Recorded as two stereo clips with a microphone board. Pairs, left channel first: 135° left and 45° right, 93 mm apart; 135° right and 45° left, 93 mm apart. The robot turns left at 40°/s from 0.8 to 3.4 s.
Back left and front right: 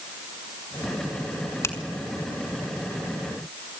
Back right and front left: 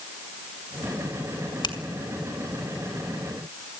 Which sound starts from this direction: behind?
A finger snap, at 1.6 s.